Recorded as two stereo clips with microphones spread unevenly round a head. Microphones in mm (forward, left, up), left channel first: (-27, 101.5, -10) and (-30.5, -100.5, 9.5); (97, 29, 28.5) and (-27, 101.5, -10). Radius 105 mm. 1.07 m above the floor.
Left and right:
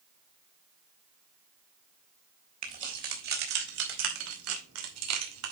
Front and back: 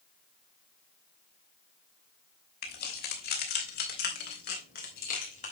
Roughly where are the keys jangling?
Ahead right.